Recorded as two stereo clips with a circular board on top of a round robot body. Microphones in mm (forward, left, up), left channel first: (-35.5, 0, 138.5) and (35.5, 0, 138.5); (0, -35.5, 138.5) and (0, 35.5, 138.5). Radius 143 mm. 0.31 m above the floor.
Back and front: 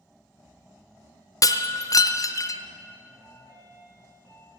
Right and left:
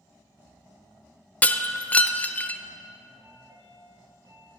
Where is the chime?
55° left, 4.5 m.